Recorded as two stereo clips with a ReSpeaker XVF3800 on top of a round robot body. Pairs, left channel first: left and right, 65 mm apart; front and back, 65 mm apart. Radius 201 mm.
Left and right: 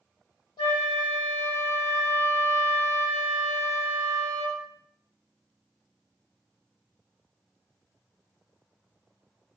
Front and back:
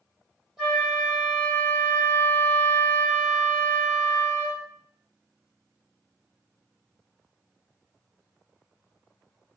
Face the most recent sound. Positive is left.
turn(degrees=95)